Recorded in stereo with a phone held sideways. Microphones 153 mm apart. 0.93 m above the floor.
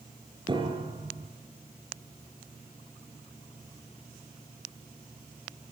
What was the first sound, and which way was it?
A piano, 30° right (ahead or behind).